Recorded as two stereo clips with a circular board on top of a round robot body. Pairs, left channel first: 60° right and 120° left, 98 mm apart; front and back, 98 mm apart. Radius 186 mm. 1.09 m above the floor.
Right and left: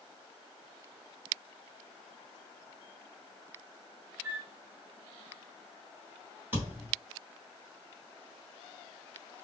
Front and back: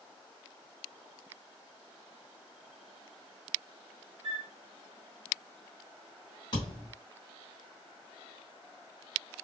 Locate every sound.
4.2 s a flute: 165° right, 1.6 m
6.5 s a thud: 50° left, 1.0 m